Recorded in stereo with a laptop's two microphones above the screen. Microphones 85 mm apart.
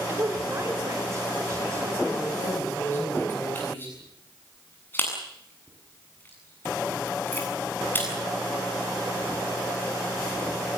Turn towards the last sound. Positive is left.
turn(degrees=25)  # may be behind; listen again after turning